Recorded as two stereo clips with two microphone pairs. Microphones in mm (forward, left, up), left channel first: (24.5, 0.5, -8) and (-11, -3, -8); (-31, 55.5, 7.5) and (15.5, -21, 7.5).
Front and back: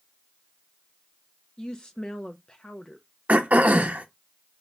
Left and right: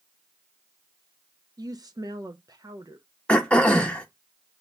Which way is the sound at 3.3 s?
165° right.